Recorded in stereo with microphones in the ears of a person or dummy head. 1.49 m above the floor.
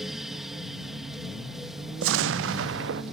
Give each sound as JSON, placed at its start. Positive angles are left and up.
{"t": 0.0, "sound": "a fan", "side_deg": -5}
{"t": 2.0, "sound": "an explosion", "side_deg": -75}